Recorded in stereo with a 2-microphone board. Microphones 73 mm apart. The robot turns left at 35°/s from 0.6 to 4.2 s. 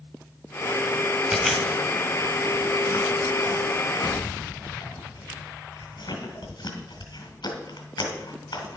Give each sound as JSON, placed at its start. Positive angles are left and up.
{"t": 1.3, "sound": "chewing", "side_deg": 0, "distance_m": 2.5}